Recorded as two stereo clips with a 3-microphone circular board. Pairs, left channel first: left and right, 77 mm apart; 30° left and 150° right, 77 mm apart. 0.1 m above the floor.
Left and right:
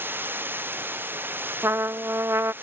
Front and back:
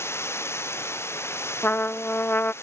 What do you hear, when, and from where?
0.0 s running water: 25° right
1.6 s a trumpet: 30° right